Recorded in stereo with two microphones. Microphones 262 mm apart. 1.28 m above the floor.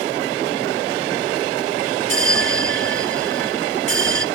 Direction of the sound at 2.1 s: 50° right (ahead or behind).